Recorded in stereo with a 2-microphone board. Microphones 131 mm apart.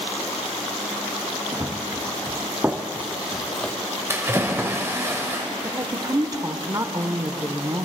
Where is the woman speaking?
30° right (ahead or behind), 0.9 m.